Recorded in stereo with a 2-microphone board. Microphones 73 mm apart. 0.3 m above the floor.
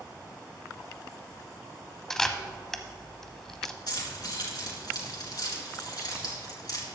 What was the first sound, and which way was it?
A camera shutter, 5° left (ahead or behind).